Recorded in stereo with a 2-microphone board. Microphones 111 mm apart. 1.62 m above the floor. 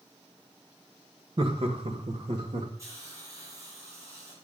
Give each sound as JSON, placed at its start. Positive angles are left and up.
{"t": 1.4, "sound": "laughter", "side_deg": -50, "distance_m": 1.9}
{"t": 2.8, "sound": "a hiss", "side_deg": -25, "distance_m": 6.5}